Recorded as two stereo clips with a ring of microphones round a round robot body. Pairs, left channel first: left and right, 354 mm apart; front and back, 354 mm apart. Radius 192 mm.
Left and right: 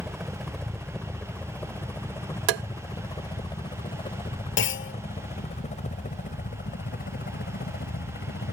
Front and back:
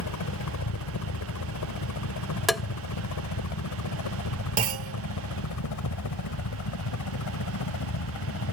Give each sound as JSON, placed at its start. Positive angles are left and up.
{"t": 0.0, "sound": "a helicopter", "azimuth_deg": 0}
{"t": 2.5, "sound": "tapping", "azimuth_deg": -90}
{"t": 4.6, "sound": "a clunk", "azimuth_deg": 135}